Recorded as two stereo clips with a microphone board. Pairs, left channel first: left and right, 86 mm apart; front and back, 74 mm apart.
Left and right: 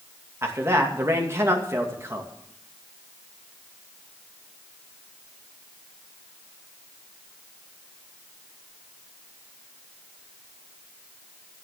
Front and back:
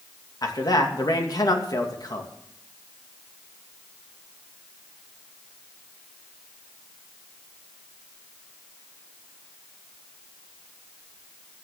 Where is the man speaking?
30° right, 2.5 m.